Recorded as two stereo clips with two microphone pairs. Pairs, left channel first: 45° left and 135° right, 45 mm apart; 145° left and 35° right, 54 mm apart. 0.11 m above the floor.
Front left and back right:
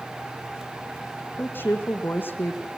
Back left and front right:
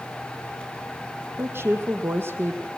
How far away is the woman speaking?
About 3.5 m.